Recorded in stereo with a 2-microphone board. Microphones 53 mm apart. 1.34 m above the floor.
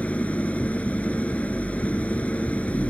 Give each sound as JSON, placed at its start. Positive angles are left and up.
{"t": 0.0, "sound": "an engine running", "side_deg": 30}